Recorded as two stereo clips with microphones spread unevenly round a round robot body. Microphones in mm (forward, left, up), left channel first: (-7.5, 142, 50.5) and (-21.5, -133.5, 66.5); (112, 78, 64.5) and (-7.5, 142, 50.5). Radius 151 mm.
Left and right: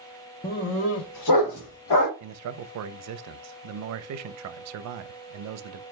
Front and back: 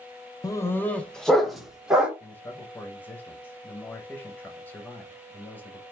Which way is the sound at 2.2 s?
110° right.